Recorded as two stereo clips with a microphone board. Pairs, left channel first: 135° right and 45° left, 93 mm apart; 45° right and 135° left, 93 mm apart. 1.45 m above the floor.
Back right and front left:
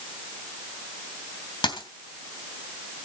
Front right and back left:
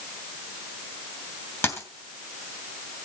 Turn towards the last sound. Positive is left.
turn(degrees=-105)